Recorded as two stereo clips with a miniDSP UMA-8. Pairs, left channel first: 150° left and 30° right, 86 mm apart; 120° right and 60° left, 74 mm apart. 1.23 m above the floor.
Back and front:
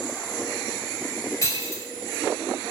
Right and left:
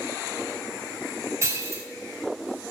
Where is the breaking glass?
105° left, 1.8 m.